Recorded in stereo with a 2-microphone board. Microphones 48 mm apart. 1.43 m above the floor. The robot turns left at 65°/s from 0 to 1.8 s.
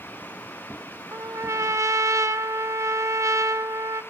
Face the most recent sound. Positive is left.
turn(degrees=-100)